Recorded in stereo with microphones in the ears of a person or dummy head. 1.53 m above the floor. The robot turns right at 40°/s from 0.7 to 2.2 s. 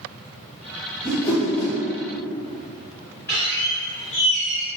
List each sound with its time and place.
1.0 s a whoosh: 15° left, 1.5 m; by 1.8 s 45° left, 1.5 m
3.3 s a squeak: 15° left (ahead or behind), 1.7 m